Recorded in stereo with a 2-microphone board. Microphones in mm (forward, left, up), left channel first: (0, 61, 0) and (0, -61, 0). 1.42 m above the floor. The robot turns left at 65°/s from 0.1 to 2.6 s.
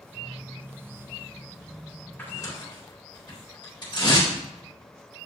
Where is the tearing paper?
15° left (ahead or behind), 3.5 m; by 4.3 s 40° left (ahead or behind), 3.5 m.